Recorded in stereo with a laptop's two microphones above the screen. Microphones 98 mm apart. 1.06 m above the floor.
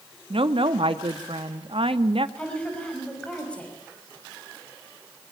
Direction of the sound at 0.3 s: 75° right (ahead or behind).